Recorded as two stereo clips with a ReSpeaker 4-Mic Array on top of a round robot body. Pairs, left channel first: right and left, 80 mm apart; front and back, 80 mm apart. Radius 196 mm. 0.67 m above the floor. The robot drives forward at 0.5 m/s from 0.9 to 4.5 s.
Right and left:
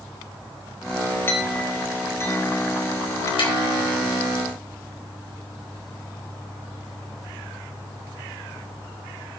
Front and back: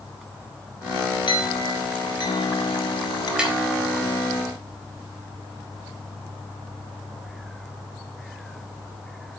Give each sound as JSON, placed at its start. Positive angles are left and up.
{"t": 1.3, "sound": "a clink", "azimuth_deg": -25, "distance_m": 3.0}
{"t": 3.4, "sound": "tapping", "azimuth_deg": -100, "distance_m": 4.0}